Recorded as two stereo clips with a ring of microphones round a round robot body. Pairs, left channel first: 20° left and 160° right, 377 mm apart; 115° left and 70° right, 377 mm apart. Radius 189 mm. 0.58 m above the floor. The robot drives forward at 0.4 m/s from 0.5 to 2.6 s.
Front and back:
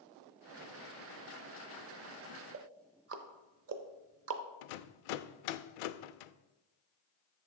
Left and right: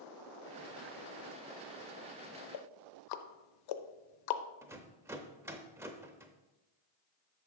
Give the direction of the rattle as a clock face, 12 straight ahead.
11 o'clock.